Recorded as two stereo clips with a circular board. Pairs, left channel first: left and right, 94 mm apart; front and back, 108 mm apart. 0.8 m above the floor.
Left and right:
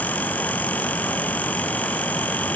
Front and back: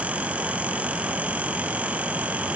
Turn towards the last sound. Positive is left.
No sound to turn to.